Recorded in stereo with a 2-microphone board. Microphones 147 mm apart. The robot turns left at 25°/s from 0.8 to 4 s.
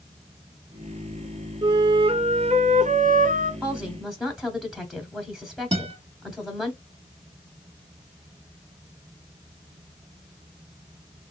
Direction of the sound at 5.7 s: 40° right (ahead or behind).